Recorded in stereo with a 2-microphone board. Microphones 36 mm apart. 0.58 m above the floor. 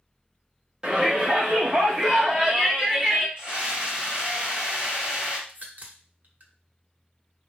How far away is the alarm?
I don't hear an alarm.